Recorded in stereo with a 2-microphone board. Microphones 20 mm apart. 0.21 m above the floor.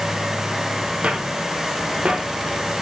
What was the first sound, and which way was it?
Footsteps, 85° right.